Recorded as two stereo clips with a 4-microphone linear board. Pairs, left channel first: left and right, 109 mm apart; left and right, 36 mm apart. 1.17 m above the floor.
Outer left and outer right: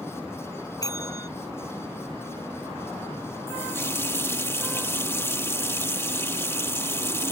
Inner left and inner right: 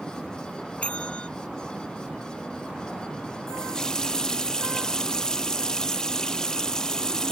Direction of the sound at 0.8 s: 35° left (ahead or behind).